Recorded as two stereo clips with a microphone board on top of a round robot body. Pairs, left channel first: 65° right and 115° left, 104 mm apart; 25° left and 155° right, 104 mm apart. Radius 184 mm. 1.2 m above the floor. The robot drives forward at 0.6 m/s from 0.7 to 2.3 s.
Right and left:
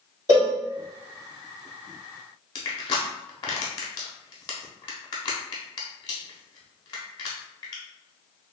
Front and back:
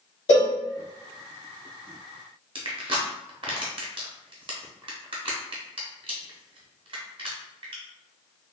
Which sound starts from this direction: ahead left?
A cowbell, at 0.3 s.